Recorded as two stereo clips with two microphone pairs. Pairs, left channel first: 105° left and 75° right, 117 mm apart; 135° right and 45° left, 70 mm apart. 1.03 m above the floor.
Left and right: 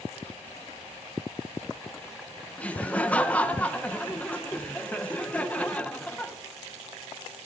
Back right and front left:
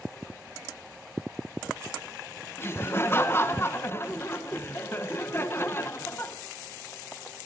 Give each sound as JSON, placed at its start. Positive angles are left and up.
{"t": 2.6, "sound": "laughter", "azimuth_deg": 180, "distance_m": 0.9}